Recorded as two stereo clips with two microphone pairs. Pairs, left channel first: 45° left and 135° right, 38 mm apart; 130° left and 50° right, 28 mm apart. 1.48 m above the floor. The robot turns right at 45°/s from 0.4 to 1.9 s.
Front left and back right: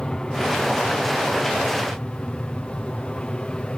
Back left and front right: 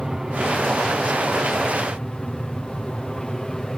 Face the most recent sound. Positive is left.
turn(degrees=70)